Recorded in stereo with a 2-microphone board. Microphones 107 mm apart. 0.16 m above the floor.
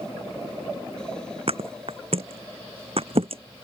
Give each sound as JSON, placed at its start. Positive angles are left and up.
{"t": 1.5, "sound": "a thud", "side_deg": -65}